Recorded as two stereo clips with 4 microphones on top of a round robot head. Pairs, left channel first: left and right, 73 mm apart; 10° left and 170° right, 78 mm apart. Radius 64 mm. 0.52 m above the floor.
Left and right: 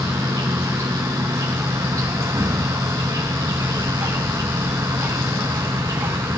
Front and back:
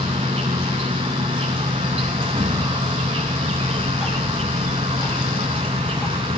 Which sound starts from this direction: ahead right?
Ticking, at 3.6 s.